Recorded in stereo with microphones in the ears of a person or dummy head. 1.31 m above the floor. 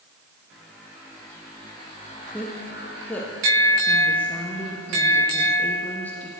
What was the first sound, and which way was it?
A woman speaking, 10° left (ahead or behind).